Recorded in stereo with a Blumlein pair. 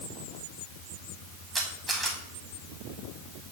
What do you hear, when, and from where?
1.6 s a camera shutter: 10° right, 1.5 m